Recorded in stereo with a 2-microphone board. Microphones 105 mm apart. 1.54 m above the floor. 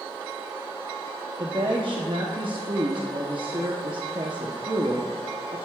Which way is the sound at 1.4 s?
50° right (ahead or behind).